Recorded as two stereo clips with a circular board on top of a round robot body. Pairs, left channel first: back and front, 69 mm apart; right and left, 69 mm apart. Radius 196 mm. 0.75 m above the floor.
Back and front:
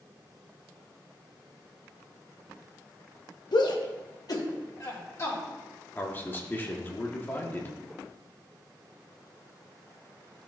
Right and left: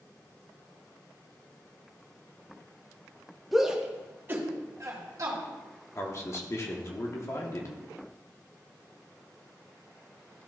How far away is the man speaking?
About 1.5 m.